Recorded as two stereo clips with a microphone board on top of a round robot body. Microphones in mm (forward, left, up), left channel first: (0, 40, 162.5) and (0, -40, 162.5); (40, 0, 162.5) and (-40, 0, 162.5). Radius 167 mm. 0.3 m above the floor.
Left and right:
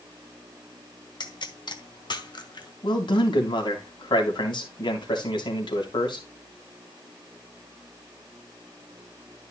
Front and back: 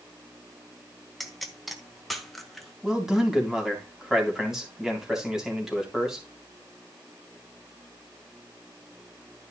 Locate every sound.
1.2 s a pop: 90° left, 1.8 m
2.8 s a man speaking: 95° left, 3.5 m